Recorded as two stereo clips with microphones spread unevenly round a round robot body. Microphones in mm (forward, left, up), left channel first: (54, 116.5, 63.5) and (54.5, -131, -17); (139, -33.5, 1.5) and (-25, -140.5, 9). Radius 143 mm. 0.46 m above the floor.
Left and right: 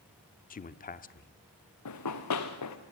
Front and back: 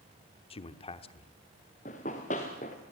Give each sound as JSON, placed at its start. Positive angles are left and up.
{"t": 0.5, "sound": "a man speaking", "azimuth_deg": 30, "distance_m": 1.0}
{"t": 1.9, "sound": "running footsteps", "azimuth_deg": 100, "distance_m": 2.0}